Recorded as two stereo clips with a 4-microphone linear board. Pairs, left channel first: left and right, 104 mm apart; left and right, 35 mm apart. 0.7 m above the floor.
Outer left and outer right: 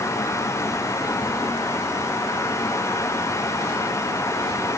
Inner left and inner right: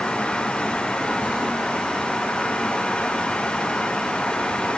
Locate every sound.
Only background noise.